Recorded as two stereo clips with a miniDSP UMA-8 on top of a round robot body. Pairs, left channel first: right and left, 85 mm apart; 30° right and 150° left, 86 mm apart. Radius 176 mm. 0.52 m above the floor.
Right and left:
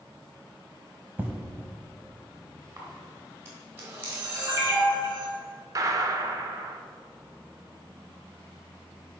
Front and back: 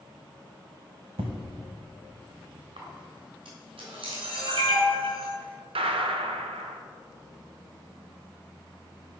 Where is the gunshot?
140° left, 0.6 m.